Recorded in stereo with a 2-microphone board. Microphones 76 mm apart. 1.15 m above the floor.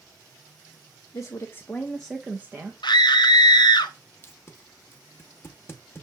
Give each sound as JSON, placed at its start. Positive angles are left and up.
{"t": 1.1, "sound": "a woman speaking", "side_deg": 50, "distance_m": 0.7}
{"t": 2.8, "sound": "a scream", "side_deg": 70, "distance_m": 0.6}
{"t": 4.2, "sound": "tape being pulled", "side_deg": 30, "distance_m": 0.7}